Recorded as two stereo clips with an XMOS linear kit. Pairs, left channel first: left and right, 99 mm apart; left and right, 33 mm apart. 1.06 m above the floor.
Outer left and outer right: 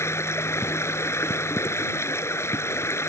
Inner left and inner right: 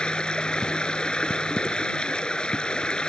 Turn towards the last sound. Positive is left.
turn(degrees=25)  # may be behind; listen again after turning